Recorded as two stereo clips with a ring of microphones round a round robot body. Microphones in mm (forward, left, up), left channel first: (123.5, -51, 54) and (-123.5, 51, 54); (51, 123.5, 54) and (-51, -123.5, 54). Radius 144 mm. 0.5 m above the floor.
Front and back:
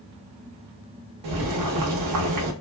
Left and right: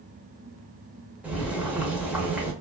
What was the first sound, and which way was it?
Boiling, 165° left.